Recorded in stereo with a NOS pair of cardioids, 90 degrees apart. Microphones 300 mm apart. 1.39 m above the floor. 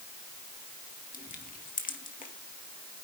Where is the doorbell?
No doorbell in this recording.